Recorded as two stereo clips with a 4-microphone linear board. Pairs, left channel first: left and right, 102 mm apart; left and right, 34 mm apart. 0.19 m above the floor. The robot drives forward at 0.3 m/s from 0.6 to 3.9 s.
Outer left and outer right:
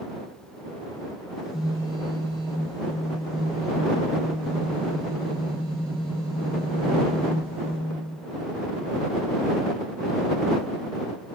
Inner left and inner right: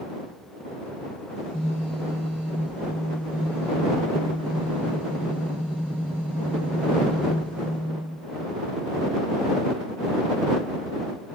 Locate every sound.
1.4 s a phone buzzing: 5° right (ahead or behind), 2 m